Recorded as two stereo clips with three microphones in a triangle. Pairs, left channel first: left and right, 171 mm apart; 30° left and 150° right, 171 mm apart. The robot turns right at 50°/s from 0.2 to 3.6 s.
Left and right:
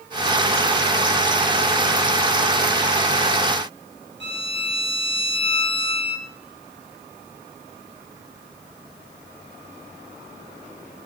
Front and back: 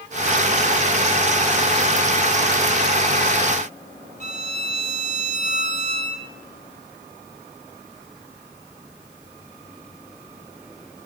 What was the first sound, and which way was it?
A violin, 100° right.